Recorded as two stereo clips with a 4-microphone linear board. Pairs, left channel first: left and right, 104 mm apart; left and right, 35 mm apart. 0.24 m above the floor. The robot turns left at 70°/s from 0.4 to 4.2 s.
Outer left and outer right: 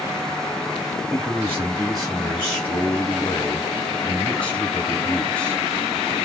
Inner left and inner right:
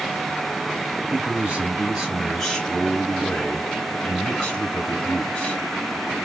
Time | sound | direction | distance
1.1 | a man speaking | 25° right (ahead or behind) | 1.5 m